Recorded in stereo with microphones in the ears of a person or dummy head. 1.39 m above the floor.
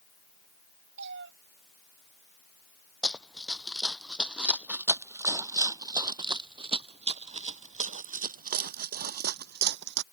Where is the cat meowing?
60° right (ahead or behind).